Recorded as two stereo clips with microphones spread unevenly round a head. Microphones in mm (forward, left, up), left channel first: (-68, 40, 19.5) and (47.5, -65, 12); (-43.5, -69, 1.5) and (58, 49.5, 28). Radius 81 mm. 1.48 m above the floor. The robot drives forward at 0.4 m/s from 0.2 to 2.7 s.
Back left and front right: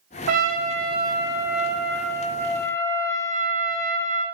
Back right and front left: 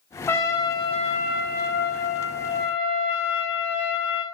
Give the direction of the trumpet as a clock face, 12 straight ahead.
2 o'clock.